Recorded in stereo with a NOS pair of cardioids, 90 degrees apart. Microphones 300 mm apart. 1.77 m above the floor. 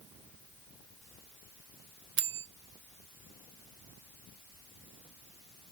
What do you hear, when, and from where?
2.2 s a bell: 40° right, 0.6 m